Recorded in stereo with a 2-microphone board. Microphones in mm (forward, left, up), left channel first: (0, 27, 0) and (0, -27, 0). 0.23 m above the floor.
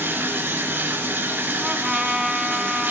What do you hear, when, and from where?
0.0 s running water: 40° right (ahead or behind), 1.3 m
1.6 s a trumpet: 10° right (ahead or behind), 0.7 m